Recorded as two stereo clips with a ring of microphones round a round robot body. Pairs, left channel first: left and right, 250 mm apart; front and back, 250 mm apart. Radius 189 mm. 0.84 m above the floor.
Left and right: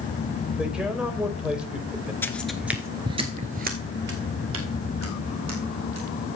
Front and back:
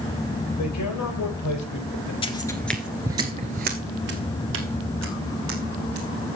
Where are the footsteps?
20° left, 0.8 m; by 6.4 s 140° right, 2.5 m.